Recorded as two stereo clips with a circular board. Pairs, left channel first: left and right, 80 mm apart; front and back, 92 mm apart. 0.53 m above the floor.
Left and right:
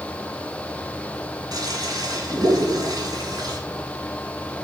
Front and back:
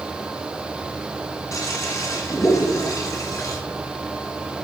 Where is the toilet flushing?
55° right, 1.6 m.